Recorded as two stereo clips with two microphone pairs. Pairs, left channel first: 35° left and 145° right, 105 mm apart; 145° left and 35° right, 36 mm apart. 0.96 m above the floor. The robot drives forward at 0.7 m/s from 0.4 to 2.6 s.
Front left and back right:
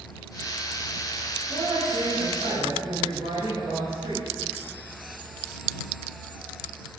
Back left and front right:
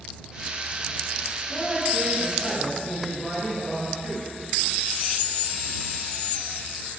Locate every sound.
1.5 s a woman speaking: 120° right, 4 m; by 4.2 s 130° right, 4.5 m